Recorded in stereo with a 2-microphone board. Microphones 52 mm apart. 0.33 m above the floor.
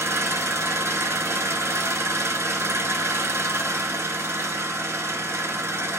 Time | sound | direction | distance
0.0 | an engine running | 60° right (ahead or behind) | 1.2 m